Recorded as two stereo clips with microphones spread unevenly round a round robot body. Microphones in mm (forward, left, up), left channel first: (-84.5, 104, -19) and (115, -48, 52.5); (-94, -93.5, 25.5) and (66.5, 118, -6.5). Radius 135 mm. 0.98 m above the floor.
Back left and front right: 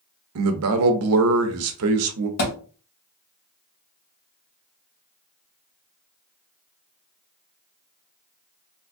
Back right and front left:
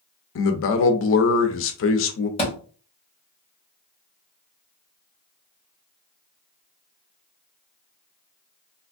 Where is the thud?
165° left, 2 m.